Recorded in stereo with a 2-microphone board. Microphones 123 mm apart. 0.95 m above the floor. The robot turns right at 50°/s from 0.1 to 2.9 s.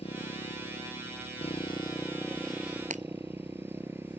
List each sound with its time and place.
0.0 s a motorcycle: 60° left; by 4.2 s 160° right
2.9 s breaking glass: 85° right